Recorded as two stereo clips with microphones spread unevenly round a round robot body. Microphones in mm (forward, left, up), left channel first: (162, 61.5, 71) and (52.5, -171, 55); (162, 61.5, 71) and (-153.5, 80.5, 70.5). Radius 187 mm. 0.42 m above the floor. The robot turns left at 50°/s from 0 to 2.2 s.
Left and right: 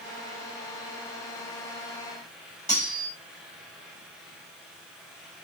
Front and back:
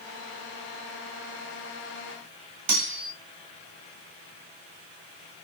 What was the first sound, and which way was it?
Cutlery clinking, 145° left.